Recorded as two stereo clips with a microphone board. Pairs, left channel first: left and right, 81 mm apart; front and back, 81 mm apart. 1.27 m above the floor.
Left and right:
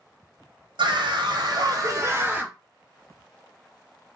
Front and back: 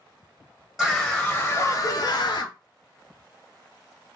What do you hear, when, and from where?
0.8 s a scream: 95° right, 0.8 m; by 2.5 s 10° right, 0.7 m